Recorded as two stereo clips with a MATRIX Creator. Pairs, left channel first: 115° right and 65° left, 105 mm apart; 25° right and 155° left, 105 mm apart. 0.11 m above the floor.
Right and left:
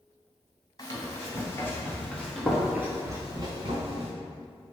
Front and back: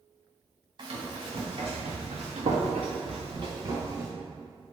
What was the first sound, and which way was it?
Running footsteps, 165° right.